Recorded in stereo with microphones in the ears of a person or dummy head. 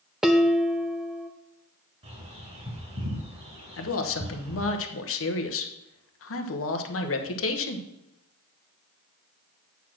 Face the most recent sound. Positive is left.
turn(degrees=65)  # may be behind; listen again after turning